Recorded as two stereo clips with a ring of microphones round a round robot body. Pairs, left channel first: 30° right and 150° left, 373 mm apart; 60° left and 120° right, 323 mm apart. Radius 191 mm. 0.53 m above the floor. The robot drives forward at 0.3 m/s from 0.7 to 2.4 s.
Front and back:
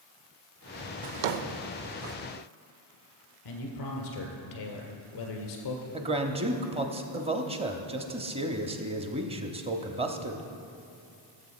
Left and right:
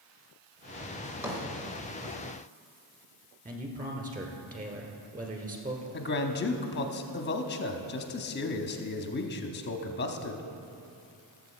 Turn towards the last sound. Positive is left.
turn(degrees=85)